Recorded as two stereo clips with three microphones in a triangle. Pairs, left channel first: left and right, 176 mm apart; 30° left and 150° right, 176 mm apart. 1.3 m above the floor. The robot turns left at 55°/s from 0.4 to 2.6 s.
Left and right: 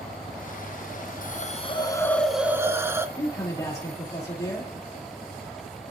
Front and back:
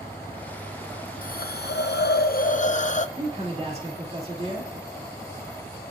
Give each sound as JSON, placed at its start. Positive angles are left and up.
{"t": 1.2, "sound": "a hiss", "azimuth_deg": 60, "distance_m": 0.5}
{"t": 3.2, "sound": "a man speaking", "azimuth_deg": 160, "distance_m": 2.5}